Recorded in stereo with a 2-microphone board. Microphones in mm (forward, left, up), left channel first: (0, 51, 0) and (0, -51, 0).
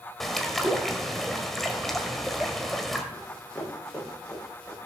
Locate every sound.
0.2 s a bird: 5° left (ahead or behind), 1.6 m
3.1 s running footsteps: 5° left (ahead or behind), 8 m; by 4.8 s 10° left (ahead or behind), 10.5 m